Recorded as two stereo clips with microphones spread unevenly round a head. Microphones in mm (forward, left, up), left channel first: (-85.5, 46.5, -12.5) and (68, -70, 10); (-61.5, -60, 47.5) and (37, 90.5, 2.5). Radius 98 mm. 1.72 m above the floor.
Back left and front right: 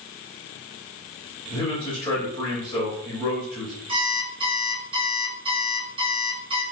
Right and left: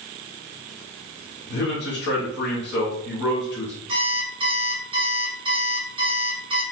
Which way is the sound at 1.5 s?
145° right.